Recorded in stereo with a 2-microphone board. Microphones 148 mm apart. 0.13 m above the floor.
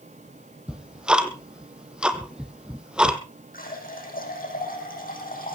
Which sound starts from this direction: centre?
Ticking, at 0.7 s.